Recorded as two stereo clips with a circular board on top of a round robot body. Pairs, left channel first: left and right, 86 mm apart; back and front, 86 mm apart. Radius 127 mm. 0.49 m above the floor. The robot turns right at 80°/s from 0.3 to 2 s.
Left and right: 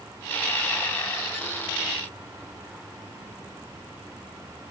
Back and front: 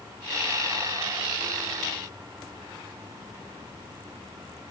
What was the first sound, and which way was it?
Only background noise.